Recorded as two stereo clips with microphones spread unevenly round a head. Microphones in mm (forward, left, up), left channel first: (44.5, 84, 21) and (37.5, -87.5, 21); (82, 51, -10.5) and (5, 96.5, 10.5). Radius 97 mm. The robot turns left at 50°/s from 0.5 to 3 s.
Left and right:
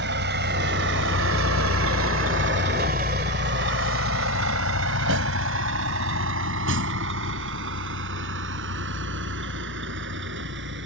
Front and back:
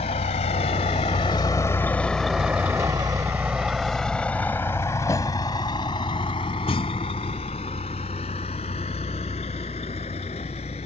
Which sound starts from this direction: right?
A vehicle, at 0.0 s.